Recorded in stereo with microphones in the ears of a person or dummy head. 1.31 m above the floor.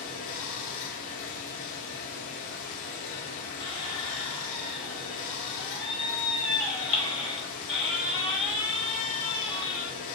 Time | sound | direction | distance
0.0 | running water | 40° left (ahead or behind) | 0.7 m
3.6 | a squeak | centre (ahead or behind) | 1.7 m